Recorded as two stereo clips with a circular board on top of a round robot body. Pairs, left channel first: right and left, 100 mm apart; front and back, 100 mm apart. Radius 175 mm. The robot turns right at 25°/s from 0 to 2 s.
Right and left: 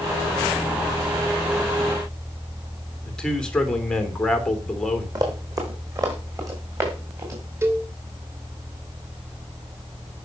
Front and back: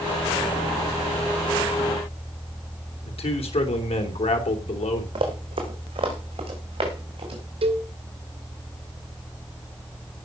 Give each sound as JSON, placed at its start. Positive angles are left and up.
{"t": 3.0, "sound": "a man speaking", "azimuth_deg": -10, "distance_m": 3.0}
{"t": 5.2, "sound": "running footsteps", "azimuth_deg": 145, "distance_m": 3.5}
{"t": 7.6, "sound": "a cowbell", "azimuth_deg": 155, "distance_m": 2.0}